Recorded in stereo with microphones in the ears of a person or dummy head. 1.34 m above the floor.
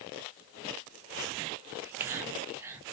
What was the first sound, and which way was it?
Whispering, 15° right (ahead or behind).